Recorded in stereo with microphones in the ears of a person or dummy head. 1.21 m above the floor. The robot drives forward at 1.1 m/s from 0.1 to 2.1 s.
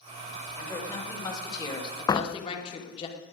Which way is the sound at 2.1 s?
15° left (ahead or behind).